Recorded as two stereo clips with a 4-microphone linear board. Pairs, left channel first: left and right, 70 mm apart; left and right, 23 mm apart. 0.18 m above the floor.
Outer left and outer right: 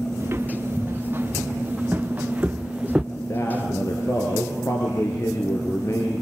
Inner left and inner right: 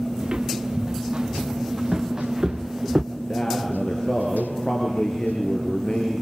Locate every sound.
0.2 s footsteps: 35° right (ahead or behind), 3 m; by 3.0 s 10° right (ahead or behind), 1.0 m
3.1 s a man speaking: 50° left (ahead or behind), 3.5 m